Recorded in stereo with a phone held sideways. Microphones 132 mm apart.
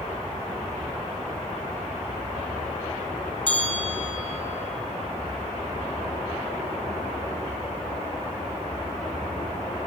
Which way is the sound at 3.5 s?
35° left (ahead or behind).